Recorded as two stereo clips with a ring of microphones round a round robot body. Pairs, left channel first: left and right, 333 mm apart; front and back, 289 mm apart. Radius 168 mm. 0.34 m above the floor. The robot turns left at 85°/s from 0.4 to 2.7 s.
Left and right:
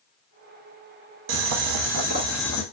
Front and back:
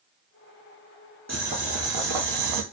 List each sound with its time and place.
1.3 s boiling: 85° right, 0.6 m; by 2.6 s 160° left, 0.6 m